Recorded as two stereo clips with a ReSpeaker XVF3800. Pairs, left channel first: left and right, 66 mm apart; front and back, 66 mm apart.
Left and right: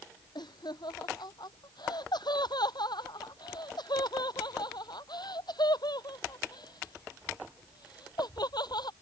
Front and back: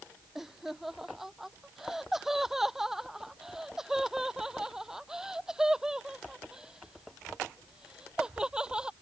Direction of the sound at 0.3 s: 95° left.